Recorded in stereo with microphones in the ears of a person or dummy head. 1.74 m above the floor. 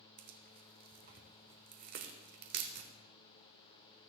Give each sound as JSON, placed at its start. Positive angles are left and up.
{"t": 0.2, "sound": "tearing paper", "side_deg": -55, "distance_m": 1.1}